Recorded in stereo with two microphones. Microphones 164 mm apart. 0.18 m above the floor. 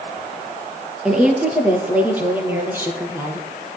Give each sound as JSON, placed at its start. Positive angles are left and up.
{"t": 1.1, "sound": "a woman speaking", "side_deg": -5, "distance_m": 3.0}